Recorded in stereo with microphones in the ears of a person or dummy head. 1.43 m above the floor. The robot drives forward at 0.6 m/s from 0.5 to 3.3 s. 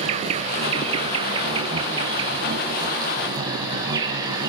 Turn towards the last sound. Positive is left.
turn(degrees=-20)  # may be behind; listen again after turning